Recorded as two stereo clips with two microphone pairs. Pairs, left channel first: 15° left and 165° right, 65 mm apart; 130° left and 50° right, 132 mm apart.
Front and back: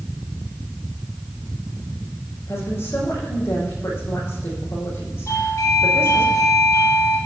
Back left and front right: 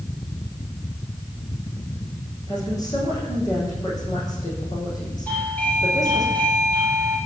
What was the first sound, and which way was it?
A woman speaking, 70° left.